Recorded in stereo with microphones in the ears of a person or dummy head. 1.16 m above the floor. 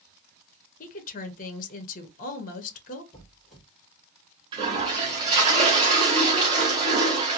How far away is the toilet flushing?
About 1.0 m.